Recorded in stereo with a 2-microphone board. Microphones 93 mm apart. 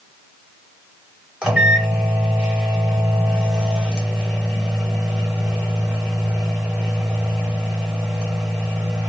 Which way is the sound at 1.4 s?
10° right (ahead or behind).